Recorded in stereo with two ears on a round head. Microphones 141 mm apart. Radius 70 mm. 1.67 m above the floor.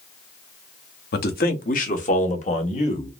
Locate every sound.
1.1 s a man speaking: 65° left (ahead or behind), 0.9 m; by 3.1 s 40° left (ahead or behind), 1.8 m